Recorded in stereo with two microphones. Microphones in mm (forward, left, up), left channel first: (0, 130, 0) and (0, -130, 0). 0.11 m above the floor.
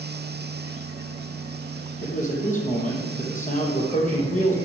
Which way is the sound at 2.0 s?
30° left (ahead or behind).